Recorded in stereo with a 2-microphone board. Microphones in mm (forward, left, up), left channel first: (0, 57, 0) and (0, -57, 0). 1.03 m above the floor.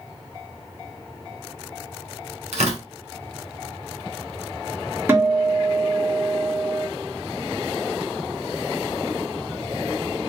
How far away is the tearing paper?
About 2.5 m.